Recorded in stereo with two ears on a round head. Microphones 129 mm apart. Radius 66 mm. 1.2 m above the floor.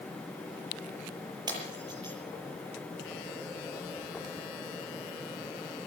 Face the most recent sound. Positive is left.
turn(degrees=-30)  # may be behind; listen again after turning